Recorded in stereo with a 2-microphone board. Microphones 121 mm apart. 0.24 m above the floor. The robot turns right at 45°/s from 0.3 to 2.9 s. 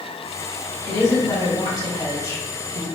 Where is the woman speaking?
55° left, 1.7 m; by 2.9 s 145° left, 1.7 m.